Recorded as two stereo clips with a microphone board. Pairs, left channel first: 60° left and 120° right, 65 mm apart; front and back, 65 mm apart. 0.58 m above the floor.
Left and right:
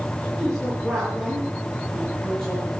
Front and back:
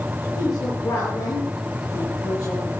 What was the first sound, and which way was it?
A woman speaking, 25° right.